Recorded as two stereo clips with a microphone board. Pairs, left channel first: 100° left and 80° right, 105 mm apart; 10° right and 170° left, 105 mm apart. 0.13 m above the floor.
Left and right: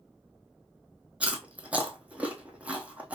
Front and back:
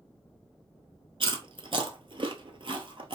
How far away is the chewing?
About 0.8 m.